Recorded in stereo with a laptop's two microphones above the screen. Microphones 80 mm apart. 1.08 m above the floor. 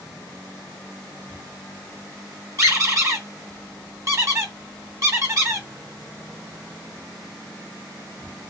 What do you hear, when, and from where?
2.6 s a squeak: 45° right (ahead or behind), 1.2 m